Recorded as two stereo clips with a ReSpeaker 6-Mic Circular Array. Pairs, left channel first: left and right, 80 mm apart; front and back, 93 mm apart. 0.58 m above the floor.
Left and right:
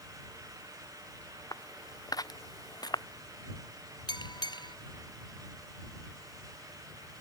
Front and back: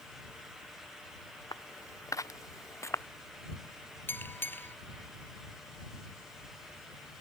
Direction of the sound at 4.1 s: 65° left.